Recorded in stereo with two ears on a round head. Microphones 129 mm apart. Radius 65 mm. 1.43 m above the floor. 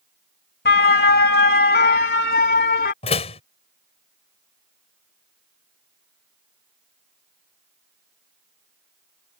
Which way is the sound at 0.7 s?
80° left.